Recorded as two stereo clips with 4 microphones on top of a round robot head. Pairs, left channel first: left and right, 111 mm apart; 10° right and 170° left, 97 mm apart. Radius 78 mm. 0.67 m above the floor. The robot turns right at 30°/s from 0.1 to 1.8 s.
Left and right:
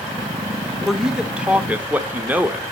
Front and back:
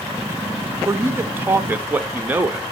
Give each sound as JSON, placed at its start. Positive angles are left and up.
{"t": 0.8, "sound": "a man speaking", "azimuth_deg": -175, "distance_m": 0.7}